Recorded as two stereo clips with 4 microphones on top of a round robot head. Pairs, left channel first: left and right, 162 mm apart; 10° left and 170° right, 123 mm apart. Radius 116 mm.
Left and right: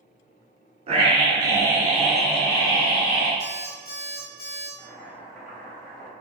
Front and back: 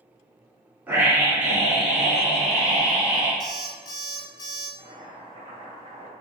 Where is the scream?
100° right, 1.6 m; by 3.3 s 90° left, 1.5 m.